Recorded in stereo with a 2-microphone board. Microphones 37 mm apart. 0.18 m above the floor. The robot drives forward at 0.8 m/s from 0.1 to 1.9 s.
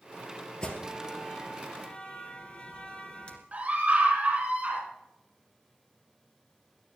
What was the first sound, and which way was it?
An alarm, 25° left (ahead or behind).